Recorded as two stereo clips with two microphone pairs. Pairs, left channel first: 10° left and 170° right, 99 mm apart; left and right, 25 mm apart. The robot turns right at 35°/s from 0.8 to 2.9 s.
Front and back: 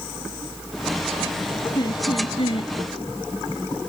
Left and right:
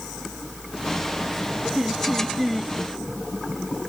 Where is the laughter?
30° right; by 2.7 s 5° left.